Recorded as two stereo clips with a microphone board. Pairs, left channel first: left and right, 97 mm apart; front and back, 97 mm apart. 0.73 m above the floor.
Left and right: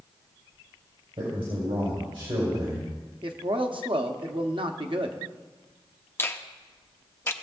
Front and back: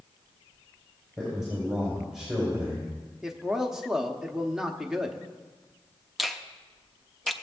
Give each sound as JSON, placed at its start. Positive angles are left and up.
{"t": 1.2, "sound": "a man speaking", "azimuth_deg": -95, "distance_m": 3.5}
{"t": 3.2, "sound": "a man speaking", "azimuth_deg": -95, "distance_m": 1.0}
{"t": 6.2, "sound": "a finger snap", "azimuth_deg": 90, "distance_m": 0.6}